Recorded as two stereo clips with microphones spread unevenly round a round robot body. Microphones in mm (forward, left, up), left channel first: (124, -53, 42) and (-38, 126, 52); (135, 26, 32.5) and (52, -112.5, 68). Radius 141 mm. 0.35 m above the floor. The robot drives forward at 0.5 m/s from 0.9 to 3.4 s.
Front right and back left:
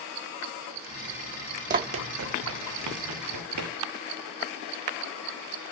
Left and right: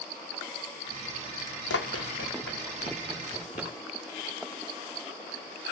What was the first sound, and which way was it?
Running footsteps, 75° left.